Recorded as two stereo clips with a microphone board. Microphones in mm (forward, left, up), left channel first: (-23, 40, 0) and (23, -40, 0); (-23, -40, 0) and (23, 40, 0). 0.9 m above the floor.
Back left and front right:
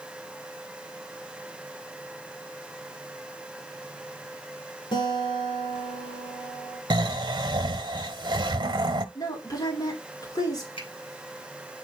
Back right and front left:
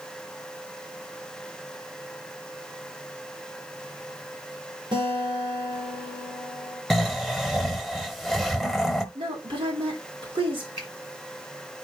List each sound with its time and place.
4.9 s a guitar: 90° left, 3 m
6.9 s snoring: 30° right, 0.9 m
9.2 s a woman speaking: 75° left, 3 m
10.8 s a finger snap: 105° left, 9 m